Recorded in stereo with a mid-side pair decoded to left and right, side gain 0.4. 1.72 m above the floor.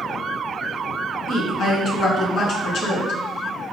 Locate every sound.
1.3 s a woman speaking: 70° left, 1.8 m